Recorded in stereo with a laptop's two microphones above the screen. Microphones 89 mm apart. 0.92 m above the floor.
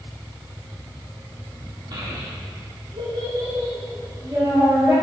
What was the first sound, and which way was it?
A child speaking, 55° right (ahead or behind).